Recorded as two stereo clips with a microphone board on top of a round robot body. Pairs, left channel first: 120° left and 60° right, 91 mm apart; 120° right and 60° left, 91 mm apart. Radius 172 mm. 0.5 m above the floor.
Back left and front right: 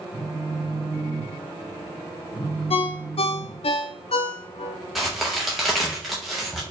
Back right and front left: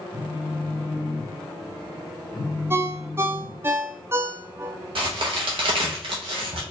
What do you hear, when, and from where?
0.1 s a phone buzzing: 175° left, 1.3 m
2.7 s a ringtone: 125° left, 0.5 m
5.0 s a crack: 30° left, 0.6 m